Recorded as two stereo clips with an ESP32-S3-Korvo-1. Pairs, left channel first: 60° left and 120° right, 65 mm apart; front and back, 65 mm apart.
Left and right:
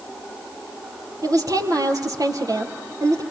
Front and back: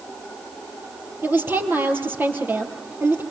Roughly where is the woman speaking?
Behind right.